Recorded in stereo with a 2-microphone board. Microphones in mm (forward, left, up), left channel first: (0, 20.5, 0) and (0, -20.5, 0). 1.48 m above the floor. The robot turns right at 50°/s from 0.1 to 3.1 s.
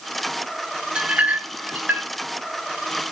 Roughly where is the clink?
Right.